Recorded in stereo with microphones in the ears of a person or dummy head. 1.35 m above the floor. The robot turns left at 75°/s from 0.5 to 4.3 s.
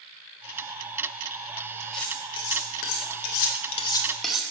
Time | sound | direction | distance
1.9 | cutlery clinking | 5° left (ahead or behind) | 1.2 m